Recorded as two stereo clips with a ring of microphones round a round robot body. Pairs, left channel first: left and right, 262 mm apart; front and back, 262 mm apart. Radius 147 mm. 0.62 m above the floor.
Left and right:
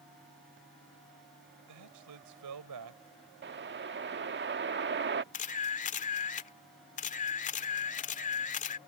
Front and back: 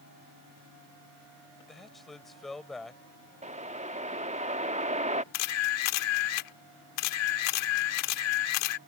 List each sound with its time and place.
1.7 s a man speaking: 90° right
3.4 s a whoosh: 125° right
5.3 s a camera shutter: 25° left